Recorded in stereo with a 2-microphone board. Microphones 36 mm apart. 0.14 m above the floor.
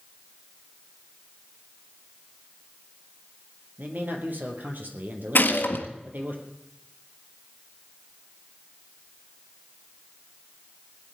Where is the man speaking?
60° right (ahead or behind), 3 m.